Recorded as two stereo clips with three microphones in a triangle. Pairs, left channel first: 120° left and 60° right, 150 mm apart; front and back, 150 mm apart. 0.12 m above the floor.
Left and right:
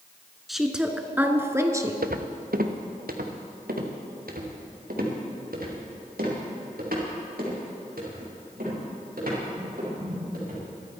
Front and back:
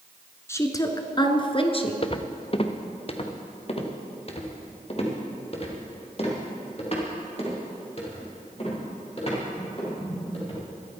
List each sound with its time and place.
0.5 s a woman speaking: 30° left, 1.2 m; by 1.9 s 5° right, 1.6 m
2.0 s footsteps: 55° right, 1.1 m; by 10.6 s 45° right, 7.5 m